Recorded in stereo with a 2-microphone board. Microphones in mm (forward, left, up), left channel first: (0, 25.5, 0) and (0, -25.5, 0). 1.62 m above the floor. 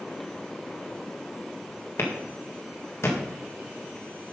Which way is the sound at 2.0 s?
60° left (ahead or behind).